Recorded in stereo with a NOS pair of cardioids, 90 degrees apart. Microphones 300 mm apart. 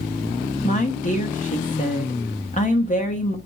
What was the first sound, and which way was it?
A woman speaking, 25° left.